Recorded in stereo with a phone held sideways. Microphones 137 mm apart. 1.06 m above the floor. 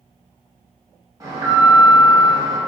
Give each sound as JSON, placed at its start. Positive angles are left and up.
{"t": 1.2, "sound": "an alarm", "side_deg": -25, "distance_m": 1.0}